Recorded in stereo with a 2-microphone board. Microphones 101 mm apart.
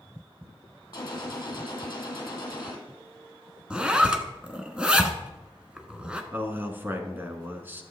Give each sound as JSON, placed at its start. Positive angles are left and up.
{"t": 0.9, "sound": "a gunshot", "side_deg": 35, "distance_m": 2.0}
{"t": 3.7, "sound": "a zipper", "side_deg": -10, "distance_m": 0.9}
{"t": 6.3, "sound": "a man speaking", "side_deg": -20, "distance_m": 1.1}